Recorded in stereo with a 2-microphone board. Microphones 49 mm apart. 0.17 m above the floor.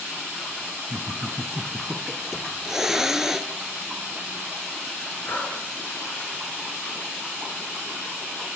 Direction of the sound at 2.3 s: 10° right (ahead or behind).